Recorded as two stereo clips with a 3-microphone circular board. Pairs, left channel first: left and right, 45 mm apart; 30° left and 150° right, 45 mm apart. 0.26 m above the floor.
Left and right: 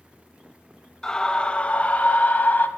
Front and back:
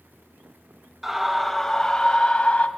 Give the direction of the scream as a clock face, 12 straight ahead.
7 o'clock.